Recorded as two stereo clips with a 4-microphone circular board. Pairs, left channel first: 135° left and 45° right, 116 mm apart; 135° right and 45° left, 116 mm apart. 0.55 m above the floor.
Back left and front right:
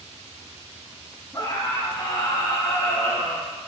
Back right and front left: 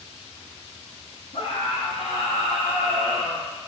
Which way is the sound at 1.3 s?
160° right.